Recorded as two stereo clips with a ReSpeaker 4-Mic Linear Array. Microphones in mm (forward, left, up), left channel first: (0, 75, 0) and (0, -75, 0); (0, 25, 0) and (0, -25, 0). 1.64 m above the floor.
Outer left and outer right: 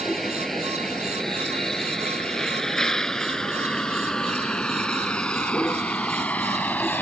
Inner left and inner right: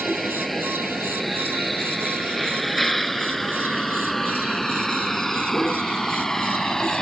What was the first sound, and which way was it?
A vehicle, centre (ahead or behind).